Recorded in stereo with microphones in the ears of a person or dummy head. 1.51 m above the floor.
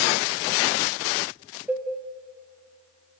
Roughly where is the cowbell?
Centre.